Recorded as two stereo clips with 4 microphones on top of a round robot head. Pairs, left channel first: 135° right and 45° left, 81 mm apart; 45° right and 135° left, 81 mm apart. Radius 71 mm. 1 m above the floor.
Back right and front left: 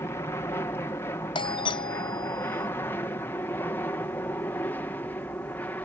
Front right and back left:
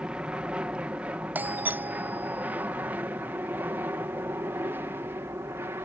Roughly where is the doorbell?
Behind right.